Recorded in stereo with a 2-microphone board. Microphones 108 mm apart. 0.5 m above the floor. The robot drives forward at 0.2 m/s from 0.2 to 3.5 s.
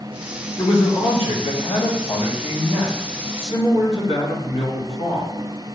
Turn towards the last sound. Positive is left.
turn(degrees=80)